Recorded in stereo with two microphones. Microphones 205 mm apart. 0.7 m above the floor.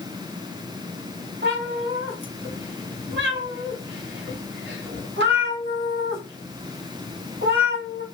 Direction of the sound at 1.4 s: 80° right.